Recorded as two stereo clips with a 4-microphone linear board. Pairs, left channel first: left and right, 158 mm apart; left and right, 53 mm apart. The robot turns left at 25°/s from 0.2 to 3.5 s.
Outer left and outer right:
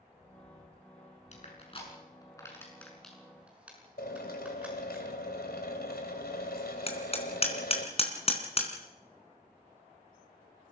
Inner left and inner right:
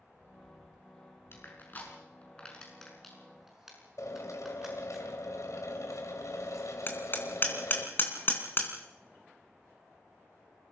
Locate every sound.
1.3 s crushing: 45° left (ahead or behind), 6.5 m; by 5.0 s 5° right (ahead or behind), 6.5 m
4.0 s a drill: 80° left, 3.5 m
6.9 s hammering: 40° left (ahead or behind), 3.5 m